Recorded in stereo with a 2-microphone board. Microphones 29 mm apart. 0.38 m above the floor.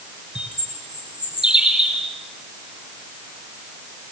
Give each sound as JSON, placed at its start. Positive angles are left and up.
{"t": 0.3, "sound": "a bird", "side_deg": -25, "distance_m": 4.5}